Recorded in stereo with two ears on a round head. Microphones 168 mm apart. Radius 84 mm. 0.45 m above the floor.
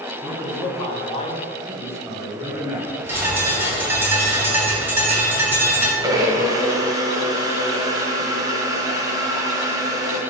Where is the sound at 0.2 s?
35° left (ahead or behind), 2.5 m; by 1.4 s 25° left (ahead or behind), 1.1 m.